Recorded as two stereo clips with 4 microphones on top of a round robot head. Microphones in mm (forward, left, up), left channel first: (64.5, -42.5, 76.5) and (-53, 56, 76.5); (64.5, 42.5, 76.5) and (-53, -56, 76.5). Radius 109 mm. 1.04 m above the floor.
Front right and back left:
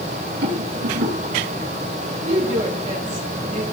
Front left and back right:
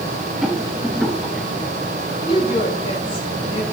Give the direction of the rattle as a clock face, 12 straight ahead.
8 o'clock.